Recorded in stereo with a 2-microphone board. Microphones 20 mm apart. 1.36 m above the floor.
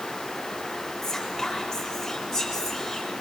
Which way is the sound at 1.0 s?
5° left (ahead or behind).